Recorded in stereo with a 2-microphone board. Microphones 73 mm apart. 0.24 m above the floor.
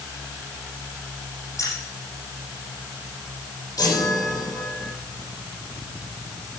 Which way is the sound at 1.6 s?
45° left (ahead or behind).